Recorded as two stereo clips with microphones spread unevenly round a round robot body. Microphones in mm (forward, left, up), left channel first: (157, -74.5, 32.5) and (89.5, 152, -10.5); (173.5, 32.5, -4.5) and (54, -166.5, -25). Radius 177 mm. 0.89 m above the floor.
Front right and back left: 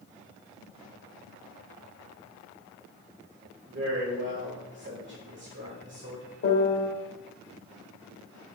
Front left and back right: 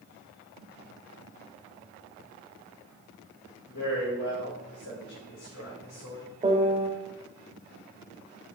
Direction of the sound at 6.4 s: 55° right.